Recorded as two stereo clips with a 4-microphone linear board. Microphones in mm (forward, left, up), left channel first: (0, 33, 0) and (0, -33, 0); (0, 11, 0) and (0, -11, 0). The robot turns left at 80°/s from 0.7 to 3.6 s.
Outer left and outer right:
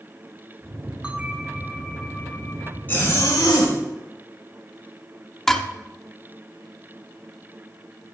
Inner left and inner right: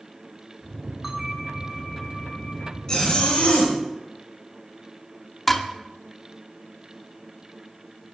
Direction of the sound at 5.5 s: 5° left (ahead or behind).